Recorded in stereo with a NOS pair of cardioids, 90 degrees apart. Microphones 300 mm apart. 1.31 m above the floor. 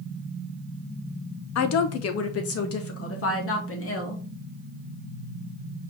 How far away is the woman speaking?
About 0.8 m.